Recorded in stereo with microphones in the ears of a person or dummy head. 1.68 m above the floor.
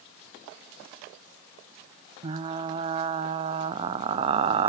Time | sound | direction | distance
2.2 | frying | 30° right (ahead or behind) | 0.6 m